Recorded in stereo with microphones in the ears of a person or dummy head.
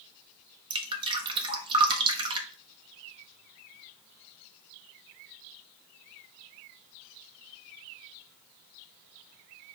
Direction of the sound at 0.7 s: 25° right (ahead or behind).